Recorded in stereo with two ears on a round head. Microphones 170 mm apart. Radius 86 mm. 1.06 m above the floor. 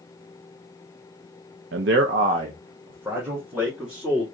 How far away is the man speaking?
About 0.6 m.